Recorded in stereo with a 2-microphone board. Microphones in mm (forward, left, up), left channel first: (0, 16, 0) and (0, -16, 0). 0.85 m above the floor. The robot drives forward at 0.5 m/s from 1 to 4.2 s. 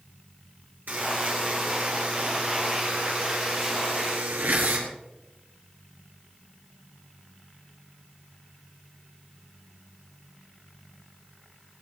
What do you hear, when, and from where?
0.9 s a buzzer: 75° right (ahead or behind), 5.5 m; by 4.9 s 85° right, 5.5 m